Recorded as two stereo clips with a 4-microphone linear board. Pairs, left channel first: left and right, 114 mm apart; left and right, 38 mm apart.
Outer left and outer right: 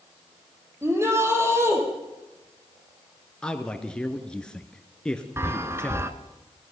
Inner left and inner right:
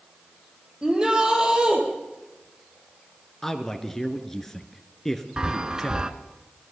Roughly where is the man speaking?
Centre.